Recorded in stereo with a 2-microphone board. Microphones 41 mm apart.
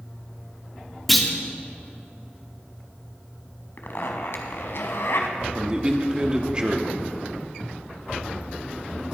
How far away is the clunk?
About 1.5 m.